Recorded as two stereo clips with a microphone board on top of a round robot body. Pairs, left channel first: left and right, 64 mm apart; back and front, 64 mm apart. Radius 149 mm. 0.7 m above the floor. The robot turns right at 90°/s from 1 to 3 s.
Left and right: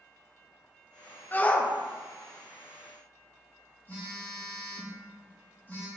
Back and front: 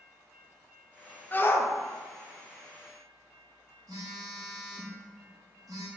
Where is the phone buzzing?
25° left, 1.5 m.